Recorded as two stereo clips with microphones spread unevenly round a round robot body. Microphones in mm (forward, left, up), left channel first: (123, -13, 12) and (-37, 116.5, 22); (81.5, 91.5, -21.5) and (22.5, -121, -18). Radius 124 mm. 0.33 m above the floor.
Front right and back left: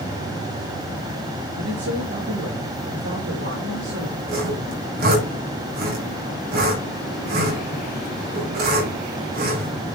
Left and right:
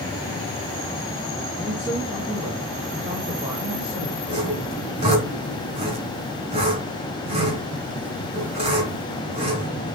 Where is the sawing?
170° right, 3.5 m.